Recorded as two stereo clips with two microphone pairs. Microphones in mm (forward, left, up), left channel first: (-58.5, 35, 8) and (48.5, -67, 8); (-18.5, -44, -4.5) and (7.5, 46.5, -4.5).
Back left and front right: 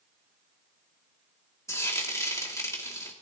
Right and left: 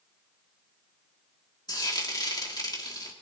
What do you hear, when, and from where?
1.7 s frying: 155° right, 2.5 m